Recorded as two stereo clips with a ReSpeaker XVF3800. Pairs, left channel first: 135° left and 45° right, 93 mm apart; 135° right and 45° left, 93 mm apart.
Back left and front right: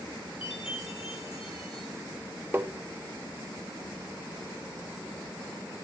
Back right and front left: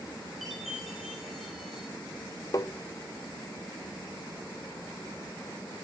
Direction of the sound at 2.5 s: 105° right.